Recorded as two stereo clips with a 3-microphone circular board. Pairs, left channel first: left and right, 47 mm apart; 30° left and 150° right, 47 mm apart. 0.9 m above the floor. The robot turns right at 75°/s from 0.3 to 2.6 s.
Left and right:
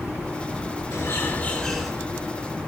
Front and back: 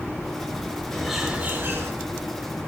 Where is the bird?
110° left, 6 m; by 1.9 s 175° right, 6 m.